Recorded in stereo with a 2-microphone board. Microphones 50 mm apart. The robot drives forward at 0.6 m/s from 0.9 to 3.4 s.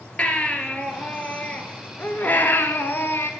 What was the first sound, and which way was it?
A baby crying, 25° left (ahead or behind).